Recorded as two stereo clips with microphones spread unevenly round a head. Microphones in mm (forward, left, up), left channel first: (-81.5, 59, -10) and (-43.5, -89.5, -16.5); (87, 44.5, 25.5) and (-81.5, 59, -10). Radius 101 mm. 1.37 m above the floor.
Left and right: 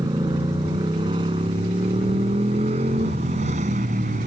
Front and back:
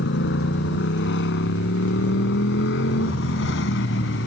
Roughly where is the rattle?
No rattle in this recording.